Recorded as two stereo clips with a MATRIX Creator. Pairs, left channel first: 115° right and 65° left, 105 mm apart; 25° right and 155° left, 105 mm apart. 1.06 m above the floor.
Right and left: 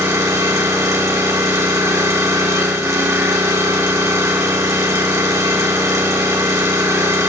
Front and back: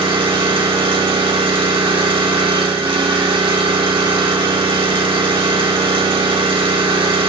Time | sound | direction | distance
0.0 | an engine running | 125° left | 1.4 m